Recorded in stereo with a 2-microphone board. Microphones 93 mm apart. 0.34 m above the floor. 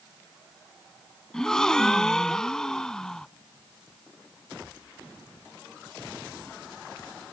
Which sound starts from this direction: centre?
A gasp, at 1.3 s.